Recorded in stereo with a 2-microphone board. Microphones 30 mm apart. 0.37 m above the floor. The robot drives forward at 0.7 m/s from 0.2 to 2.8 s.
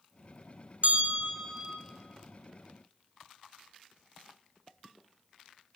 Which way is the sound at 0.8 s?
60° right (ahead or behind).